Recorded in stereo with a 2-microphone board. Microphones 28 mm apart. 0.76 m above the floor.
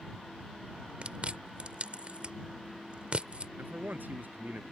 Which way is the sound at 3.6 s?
85° right.